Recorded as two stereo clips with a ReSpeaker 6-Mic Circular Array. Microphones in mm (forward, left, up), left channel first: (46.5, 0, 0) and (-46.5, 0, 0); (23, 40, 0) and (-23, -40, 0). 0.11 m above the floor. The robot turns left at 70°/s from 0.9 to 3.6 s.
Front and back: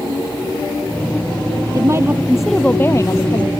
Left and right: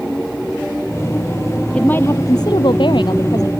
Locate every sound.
1.7 s a woman speaking: 140° left; by 3.5 s 15° left